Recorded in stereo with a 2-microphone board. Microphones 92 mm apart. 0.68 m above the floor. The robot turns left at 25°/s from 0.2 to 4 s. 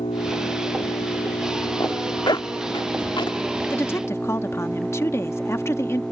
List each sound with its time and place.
0.0 s an engine running: 100° left; by 6.1 s 5° left
1.8 s a zipper: 45° left (ahead or behind); by 3.4 s 60° left (ahead or behind)
3.7 s a woman speaking: 25° left (ahead or behind)